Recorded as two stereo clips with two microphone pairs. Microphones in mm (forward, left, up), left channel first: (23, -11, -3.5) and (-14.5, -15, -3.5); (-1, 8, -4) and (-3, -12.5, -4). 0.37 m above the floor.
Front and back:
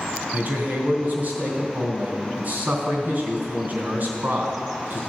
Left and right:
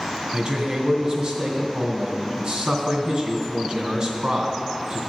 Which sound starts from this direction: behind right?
A man speaking, at 0.3 s.